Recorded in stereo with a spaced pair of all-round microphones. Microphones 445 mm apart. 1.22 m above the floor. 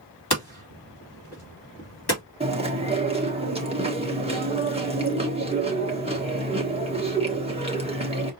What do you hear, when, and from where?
0.3 s hammering: 60° left (ahead or behind), 2.5 m
2.4 s chewing: 15° right (ahead or behind), 1.3 m